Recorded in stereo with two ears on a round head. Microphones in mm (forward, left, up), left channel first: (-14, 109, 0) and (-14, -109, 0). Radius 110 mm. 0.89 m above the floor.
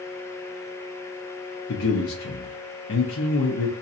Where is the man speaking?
55° left (ahead or behind), 0.8 m.